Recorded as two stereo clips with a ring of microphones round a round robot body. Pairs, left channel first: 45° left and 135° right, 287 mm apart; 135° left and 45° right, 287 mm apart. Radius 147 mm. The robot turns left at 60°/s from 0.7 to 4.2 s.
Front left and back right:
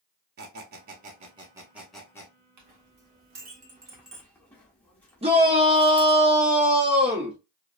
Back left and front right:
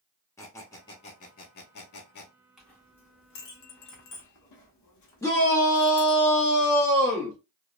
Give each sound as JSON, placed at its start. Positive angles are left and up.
{"t": 0.4, "sound": "a squeak", "azimuth_deg": -155, "distance_m": 0.5}
{"t": 2.6, "sound": "a clink", "azimuth_deg": -135, "distance_m": 1.0}
{"t": 5.2, "sound": "a shout", "azimuth_deg": -160, "distance_m": 0.9}